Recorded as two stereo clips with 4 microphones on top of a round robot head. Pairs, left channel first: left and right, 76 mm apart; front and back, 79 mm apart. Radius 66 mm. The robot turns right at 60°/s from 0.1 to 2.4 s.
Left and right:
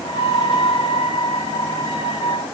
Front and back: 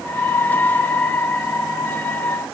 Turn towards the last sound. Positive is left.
No sound to turn to.